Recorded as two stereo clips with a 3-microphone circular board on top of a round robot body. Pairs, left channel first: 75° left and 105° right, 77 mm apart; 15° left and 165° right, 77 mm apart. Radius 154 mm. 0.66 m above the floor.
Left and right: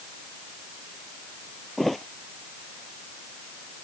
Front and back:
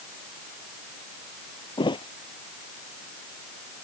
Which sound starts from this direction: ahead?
A thud, at 1.8 s.